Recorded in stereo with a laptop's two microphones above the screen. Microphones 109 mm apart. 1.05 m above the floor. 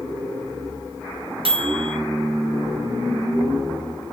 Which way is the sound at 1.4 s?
55° right (ahead or behind).